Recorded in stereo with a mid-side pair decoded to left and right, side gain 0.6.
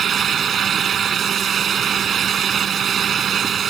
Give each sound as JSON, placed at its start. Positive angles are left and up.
{"t": 0.0, "sound": "a fan", "azimuth_deg": -40}